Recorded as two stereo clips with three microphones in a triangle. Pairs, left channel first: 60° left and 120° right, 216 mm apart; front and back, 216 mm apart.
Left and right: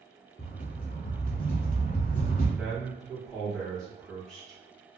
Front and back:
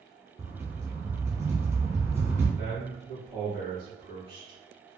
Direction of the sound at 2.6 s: 145° left.